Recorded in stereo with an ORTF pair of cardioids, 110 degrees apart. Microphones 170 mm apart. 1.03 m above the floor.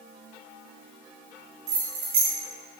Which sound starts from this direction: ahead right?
Keys jangling, at 1.7 s.